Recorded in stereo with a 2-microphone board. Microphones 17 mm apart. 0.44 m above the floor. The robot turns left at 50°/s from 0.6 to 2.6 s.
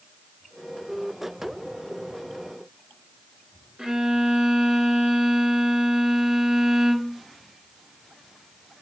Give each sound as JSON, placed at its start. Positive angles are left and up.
{"t": 3.8, "sound": "a violin", "side_deg": -55, "distance_m": 1.2}